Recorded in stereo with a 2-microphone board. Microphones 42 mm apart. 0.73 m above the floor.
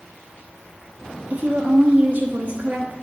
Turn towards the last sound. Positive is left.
turn(degrees=-45)  # may be behind; listen again after turning